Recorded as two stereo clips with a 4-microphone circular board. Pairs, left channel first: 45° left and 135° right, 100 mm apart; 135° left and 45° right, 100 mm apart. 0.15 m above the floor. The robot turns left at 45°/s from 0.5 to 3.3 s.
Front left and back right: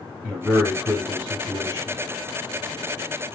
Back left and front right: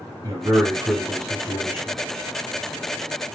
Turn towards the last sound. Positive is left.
turn(degrees=-170)